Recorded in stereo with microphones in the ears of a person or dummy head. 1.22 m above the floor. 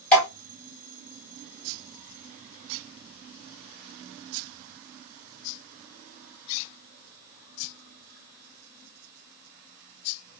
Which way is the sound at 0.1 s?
10° left (ahead or behind).